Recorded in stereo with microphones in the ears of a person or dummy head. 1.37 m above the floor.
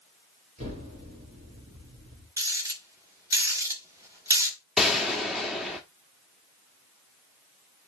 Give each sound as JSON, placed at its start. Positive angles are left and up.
{"t": 0.6, "sound": "an explosion", "side_deg": -40, "distance_m": 4.5}
{"t": 2.4, "sound": "a rattle", "side_deg": -15, "distance_m": 3.5}
{"t": 4.8, "sound": "a gunshot", "side_deg": 0, "distance_m": 1.7}